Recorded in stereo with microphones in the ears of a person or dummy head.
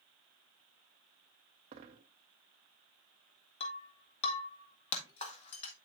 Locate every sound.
1.7 s a dropped coin: 25° right (ahead or behind), 1.2 m
3.6 s breaking glass: 35° left (ahead or behind), 1.8 m